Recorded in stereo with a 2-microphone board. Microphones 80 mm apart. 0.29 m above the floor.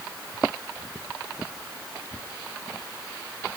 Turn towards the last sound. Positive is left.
No sound to turn to.